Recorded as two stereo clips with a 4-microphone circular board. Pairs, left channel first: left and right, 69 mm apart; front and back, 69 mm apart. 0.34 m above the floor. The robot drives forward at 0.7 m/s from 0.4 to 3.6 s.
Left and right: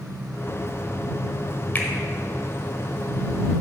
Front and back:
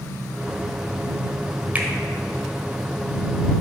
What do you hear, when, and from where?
1.8 s a finger snap: 130° left, 1.0 m; by 1.9 s 135° left, 1.1 m